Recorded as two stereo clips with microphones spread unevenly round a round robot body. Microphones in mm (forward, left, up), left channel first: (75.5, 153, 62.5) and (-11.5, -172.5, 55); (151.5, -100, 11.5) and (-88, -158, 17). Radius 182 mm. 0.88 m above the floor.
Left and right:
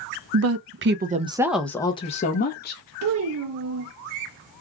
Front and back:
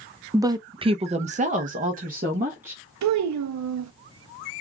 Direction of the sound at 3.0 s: 155° right.